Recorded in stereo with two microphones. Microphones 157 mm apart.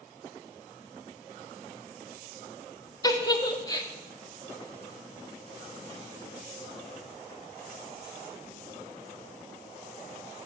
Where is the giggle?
25° left (ahead or behind), 0.9 m.